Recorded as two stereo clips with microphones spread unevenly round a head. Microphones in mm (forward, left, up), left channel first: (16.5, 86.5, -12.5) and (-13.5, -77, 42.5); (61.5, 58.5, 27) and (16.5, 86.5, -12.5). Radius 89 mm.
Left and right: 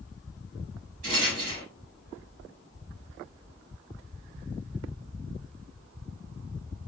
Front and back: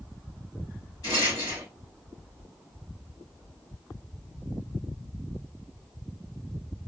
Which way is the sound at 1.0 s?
60° right.